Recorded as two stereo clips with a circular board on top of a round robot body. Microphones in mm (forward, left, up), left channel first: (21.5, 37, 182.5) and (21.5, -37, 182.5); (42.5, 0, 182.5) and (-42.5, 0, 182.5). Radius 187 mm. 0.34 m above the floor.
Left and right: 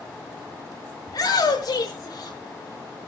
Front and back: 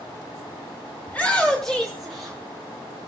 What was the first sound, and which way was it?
A shout, 70° left.